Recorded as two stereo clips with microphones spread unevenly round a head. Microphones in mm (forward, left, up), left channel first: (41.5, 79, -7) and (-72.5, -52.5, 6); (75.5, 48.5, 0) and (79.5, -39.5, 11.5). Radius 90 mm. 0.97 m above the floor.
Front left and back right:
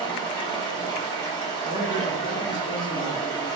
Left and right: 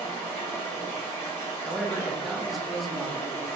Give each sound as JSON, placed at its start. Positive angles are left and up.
{"t": 0.0, "sound": "running water", "azimuth_deg": 115, "distance_m": 1.1}
{"t": 1.6, "sound": "a man speaking", "azimuth_deg": 10, "distance_m": 0.6}